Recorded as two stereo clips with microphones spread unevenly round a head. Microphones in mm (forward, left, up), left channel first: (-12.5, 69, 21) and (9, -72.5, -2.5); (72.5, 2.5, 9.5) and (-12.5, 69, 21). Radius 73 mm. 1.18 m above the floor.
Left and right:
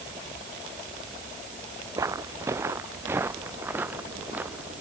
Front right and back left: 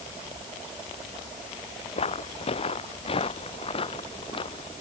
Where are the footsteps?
10° right; by 4.7 s straight ahead.